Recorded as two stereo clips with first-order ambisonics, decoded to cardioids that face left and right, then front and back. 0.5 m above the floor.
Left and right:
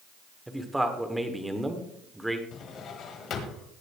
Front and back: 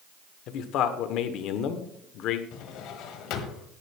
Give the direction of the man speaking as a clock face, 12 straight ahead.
12 o'clock.